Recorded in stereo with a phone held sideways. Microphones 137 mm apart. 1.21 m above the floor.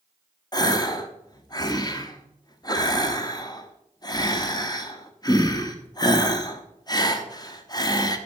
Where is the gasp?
30° left (ahead or behind), 0.8 m.